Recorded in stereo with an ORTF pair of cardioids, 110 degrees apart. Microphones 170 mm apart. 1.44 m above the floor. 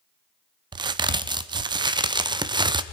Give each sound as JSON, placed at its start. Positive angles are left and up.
{"t": 0.7, "sound": "a crack", "azimuth_deg": -25, "distance_m": 0.8}